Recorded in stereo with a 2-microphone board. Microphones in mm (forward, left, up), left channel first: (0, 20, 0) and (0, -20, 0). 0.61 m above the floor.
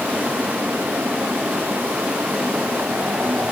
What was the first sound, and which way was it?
Only background noise.